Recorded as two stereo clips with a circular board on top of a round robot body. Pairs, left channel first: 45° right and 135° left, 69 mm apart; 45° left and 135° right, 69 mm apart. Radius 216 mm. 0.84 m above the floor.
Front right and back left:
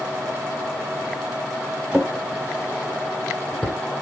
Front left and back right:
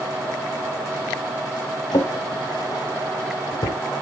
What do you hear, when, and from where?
1.9 s a drawer: 55° left, 0.8 m